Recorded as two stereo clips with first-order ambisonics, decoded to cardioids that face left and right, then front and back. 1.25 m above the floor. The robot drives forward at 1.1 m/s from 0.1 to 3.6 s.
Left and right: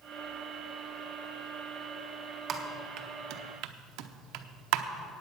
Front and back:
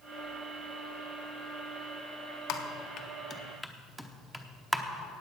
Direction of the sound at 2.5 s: 30° right.